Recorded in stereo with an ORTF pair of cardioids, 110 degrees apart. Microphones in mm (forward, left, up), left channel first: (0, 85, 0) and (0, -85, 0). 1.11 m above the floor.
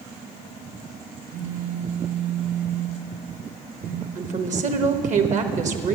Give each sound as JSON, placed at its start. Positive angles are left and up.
{"t": 1.3, "sound": "a phone buzzing", "azimuth_deg": -55, "distance_m": 0.8}
{"t": 4.2, "sound": "a woman speaking", "azimuth_deg": -50, "distance_m": 1.1}